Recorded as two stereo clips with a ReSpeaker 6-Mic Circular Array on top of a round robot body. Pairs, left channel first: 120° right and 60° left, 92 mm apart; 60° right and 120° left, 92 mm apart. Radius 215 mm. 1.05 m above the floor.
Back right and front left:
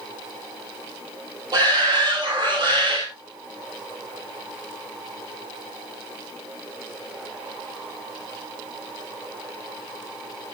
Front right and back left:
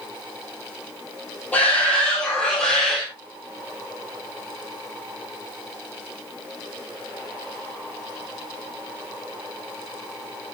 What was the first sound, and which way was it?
A shout, 15° left.